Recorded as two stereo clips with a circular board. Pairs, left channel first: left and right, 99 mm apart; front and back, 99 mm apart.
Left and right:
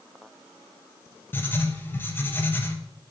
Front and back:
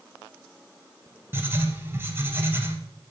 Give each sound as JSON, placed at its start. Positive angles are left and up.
{"t": 1.3, "sound": "writing", "azimuth_deg": 135, "distance_m": 0.8}